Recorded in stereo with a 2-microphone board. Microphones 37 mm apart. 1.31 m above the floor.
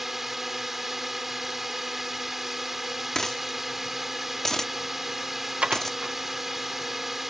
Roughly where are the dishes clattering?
Right.